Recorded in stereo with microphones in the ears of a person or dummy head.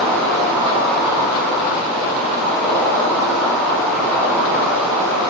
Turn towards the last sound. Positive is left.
turn(degrees=0)  # may be behind; listen again after turning